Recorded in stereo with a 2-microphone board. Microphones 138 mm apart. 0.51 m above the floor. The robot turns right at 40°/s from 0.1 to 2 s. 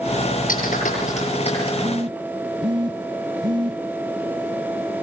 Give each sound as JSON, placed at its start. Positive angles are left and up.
{"t": 0.5, "sound": "a clap", "side_deg": 85, "distance_m": 9.5}
{"t": 1.8, "sound": "a phone buzzing", "side_deg": -25, "distance_m": 1.9}